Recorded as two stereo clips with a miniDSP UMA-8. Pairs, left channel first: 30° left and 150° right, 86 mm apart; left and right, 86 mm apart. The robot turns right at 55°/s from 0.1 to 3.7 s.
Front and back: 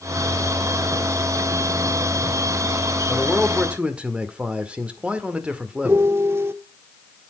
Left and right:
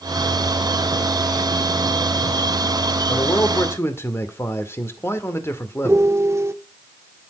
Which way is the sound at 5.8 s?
115° right.